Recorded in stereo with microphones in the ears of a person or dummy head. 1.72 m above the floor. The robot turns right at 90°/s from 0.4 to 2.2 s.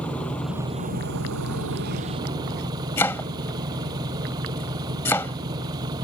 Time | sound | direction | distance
0.0 | an engine running | 175° left | ?
3.0 | chopping | 15° left (ahead or behind) | ?